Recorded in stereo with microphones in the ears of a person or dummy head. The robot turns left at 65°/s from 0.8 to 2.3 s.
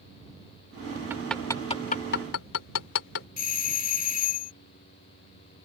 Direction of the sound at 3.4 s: 40° left (ahead or behind).